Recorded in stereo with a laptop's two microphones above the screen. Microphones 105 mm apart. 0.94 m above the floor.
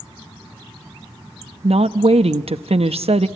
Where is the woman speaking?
70° right (ahead or behind), 0.8 m.